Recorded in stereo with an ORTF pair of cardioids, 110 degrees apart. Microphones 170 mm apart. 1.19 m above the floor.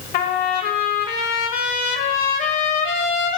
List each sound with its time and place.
0.1 s a trumpet: 60° left, 1.2 m